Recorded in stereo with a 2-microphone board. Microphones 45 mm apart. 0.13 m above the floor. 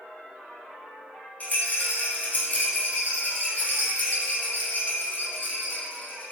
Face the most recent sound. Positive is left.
turn(degrees=40)  # may be behind; listen again after turning